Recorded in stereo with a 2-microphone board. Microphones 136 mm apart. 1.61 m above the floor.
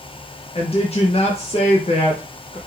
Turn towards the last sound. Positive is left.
turn(degrees=45)  # may be behind; listen again after turning